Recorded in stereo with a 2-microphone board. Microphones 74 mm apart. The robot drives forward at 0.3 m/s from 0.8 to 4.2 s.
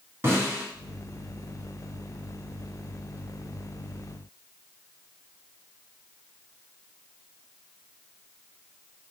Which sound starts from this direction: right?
A snare drum, at 0.2 s.